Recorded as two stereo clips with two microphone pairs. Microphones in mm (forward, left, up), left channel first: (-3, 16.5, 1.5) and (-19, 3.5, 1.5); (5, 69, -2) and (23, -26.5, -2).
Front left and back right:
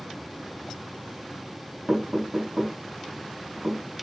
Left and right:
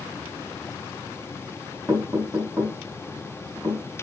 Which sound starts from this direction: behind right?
Knocking, at 1.9 s.